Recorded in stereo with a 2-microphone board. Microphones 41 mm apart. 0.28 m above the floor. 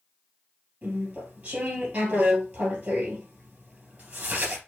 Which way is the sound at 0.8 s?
40° right (ahead or behind).